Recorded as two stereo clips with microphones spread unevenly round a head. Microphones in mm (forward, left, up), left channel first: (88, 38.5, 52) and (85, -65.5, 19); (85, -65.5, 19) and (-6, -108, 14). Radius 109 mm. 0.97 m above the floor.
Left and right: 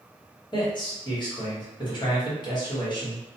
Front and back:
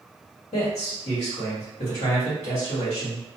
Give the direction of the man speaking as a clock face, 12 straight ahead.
11 o'clock.